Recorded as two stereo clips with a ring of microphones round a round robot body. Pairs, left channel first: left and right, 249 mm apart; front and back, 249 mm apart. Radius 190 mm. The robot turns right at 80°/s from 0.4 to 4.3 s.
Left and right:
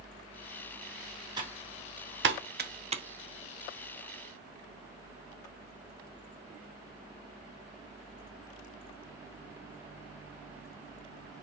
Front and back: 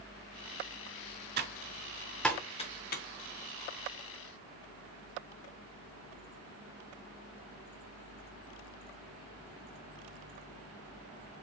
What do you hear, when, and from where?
1.4 s typing on a keyboard: 155° right, 0.5 m; by 3.0 s 25° right, 0.5 m